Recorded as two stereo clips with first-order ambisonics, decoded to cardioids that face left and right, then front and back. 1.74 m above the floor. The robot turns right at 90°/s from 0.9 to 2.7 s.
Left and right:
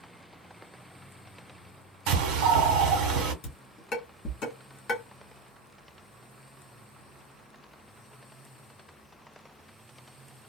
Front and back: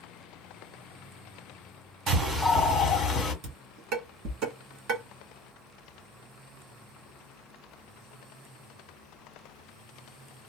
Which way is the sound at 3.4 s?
150° left.